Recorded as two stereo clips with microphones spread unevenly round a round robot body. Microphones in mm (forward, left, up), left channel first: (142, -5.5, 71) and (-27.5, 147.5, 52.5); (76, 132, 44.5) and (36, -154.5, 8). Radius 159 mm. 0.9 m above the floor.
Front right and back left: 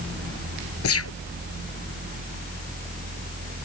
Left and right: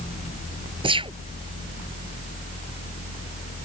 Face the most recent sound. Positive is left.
turn(degrees=-25)